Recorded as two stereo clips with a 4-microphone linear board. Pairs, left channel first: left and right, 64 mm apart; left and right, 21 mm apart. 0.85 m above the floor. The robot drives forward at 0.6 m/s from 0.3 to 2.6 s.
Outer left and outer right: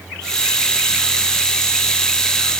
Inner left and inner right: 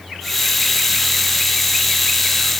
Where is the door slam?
I don't hear a door slam.